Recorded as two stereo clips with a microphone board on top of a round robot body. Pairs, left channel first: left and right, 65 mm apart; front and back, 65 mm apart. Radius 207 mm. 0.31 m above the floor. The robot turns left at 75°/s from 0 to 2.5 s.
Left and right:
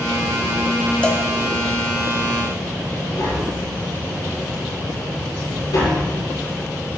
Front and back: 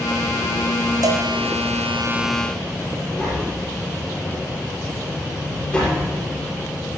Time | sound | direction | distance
1.0 | a cowbell | 165° left | 1.1 m
3.2 | tapping | 70° left | 5 m